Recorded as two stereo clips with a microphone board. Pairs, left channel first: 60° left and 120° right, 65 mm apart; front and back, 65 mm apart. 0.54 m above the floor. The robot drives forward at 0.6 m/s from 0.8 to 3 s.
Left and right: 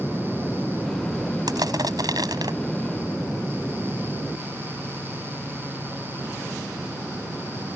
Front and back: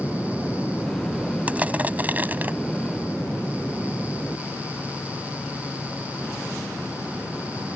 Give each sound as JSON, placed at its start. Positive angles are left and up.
{"t": 1.5, "sound": "crushing", "azimuth_deg": -110}